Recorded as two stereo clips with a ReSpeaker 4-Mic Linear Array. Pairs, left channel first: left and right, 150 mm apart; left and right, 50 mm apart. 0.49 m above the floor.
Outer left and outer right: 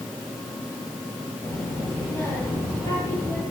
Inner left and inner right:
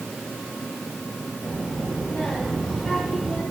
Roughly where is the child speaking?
Left.